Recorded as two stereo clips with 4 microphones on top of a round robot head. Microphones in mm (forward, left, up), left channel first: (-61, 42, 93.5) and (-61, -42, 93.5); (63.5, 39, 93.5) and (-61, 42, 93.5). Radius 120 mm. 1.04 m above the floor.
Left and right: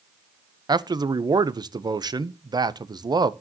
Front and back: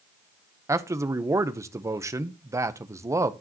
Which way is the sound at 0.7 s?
120° right.